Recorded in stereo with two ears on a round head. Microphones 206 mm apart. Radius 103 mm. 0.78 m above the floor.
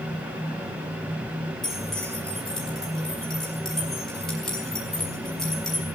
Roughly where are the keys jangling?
Centre.